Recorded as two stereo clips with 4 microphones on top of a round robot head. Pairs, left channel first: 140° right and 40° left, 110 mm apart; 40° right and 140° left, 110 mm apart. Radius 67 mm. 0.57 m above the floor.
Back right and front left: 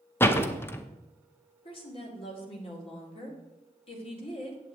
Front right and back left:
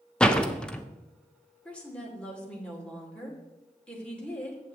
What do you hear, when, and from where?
0.2 s a door slam: 110° right, 0.8 m
1.6 s a woman speaking: 115° right, 2 m